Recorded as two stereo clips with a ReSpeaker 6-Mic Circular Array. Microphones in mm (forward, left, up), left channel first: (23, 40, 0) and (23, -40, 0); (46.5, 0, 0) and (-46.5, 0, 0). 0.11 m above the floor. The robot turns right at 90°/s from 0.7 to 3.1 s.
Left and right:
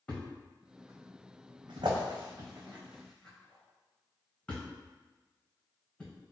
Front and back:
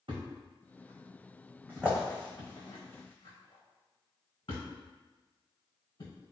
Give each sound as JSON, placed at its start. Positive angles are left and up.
{"t": 0.1, "sound": "a thud", "azimuth_deg": 155, "distance_m": 1.3}